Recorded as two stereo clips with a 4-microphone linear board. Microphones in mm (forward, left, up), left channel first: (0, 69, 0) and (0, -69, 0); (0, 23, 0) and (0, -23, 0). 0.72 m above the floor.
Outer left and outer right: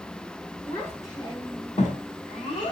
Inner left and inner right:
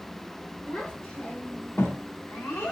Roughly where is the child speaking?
Centre.